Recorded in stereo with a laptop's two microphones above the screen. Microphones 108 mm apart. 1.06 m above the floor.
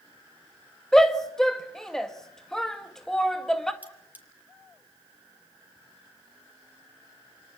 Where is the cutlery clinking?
15° right (ahead or behind), 3.5 m.